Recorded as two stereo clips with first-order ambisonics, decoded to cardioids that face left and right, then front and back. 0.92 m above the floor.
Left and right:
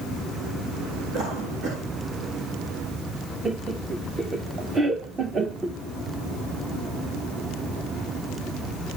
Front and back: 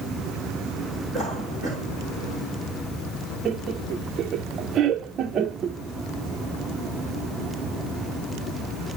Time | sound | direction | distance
1.1 | a cough | 70° right | 4 m
3.5 | laughter | 145° right | 0.7 m